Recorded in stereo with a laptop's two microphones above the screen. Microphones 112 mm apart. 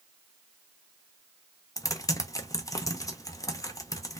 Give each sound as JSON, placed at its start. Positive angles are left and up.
{"t": 1.8, "sound": "typing on a keyboard", "side_deg": 30, "distance_m": 0.5}